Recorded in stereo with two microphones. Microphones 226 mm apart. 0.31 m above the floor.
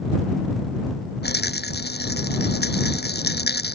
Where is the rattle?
45° left (ahead or behind).